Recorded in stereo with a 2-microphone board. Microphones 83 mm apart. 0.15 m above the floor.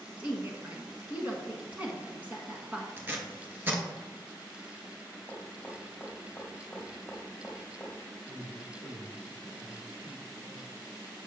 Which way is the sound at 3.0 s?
25° right (ahead or behind).